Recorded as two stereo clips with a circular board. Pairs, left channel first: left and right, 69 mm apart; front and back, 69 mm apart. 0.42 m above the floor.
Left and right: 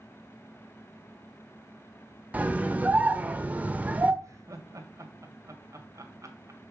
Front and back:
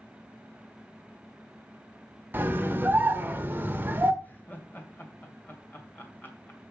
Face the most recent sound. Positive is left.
turn(degrees=-60)